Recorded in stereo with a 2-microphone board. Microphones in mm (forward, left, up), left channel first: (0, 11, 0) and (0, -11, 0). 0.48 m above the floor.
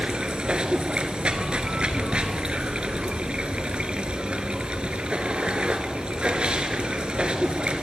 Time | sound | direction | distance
0.0 | running water | 60° right (ahead or behind) | 0.8 m